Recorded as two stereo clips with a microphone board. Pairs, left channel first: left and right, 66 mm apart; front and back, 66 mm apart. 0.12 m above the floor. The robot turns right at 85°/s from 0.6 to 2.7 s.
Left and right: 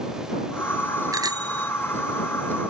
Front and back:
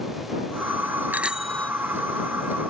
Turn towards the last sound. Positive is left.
turn(degrees=15)